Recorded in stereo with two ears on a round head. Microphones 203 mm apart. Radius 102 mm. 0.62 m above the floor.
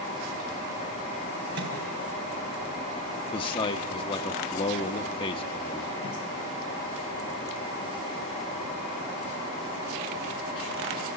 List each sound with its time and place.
1.6 s a microwave: 55° right (ahead or behind), 4.5 m
3.3 s a man speaking: 25° left (ahead or behind), 0.7 m